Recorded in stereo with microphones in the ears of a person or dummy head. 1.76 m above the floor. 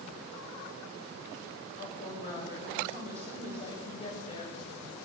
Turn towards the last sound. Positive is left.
turn(degrees=35)  # may be behind; listen again after turning